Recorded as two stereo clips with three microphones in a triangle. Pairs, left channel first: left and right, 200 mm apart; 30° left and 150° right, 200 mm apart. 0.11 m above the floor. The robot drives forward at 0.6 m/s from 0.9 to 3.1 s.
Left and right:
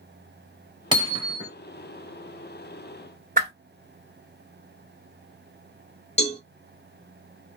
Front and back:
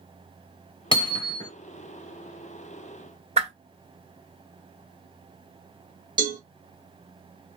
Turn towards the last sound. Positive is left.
turn(degrees=145)